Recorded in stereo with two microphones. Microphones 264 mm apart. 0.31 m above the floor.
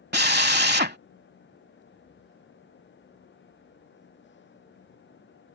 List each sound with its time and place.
0.1 s a drill: 40° right (ahead or behind)